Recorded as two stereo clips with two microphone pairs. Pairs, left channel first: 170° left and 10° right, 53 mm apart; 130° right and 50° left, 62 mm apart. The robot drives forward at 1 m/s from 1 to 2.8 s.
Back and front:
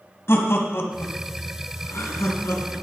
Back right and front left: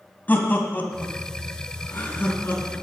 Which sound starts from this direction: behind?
Laughter, at 0.3 s.